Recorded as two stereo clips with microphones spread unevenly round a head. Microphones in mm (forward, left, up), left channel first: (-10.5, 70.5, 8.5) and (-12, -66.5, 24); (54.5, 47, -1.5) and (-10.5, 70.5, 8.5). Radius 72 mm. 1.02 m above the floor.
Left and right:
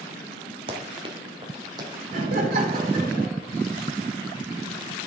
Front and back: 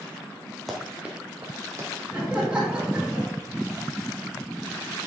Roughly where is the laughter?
Behind right.